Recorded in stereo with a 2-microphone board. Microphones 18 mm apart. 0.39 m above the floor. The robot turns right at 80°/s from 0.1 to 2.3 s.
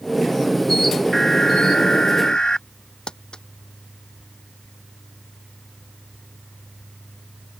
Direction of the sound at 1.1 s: 25° left.